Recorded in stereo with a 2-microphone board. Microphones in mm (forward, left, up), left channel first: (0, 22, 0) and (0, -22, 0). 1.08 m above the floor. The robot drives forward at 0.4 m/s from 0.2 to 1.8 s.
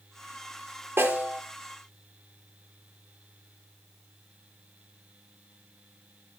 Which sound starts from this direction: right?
A snare drum, at 1.0 s.